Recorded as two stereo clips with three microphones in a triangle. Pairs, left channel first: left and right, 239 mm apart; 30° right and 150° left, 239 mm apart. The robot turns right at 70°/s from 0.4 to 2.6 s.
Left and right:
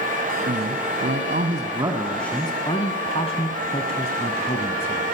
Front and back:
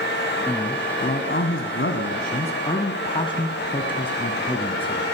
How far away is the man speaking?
About 1.7 m.